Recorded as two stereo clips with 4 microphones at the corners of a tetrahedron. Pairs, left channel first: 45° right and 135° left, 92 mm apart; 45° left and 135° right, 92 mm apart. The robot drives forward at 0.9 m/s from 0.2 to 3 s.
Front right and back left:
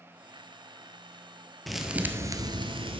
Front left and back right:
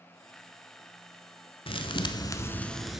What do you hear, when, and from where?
1.7 s a thud: 45° left, 0.9 m; by 3.0 s 140° left, 0.9 m